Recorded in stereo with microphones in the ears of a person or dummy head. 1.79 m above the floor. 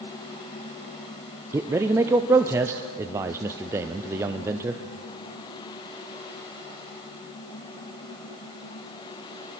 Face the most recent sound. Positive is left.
turn(degrees=-15)  # may be behind; listen again after turning